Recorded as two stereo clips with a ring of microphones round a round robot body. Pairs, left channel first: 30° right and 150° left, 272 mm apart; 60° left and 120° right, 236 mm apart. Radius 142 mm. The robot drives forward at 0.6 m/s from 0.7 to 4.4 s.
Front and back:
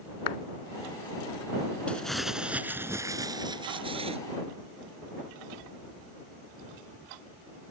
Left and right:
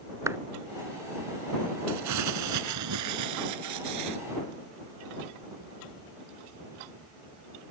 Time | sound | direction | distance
0.3 | a clap | 40° right | ?
1.9 | crumpling | 115° right | ?